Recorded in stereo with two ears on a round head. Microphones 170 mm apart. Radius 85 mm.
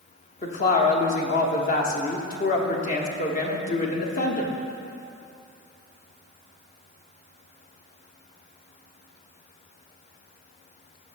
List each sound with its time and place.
0.4 s a woman speaking: 45° left (ahead or behind), 1.0 m